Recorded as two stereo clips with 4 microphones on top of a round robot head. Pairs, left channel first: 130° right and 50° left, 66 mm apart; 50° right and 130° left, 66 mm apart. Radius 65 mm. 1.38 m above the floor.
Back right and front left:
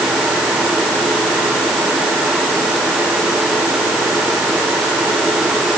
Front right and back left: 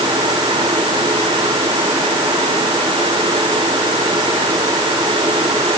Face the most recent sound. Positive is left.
No sound to turn to.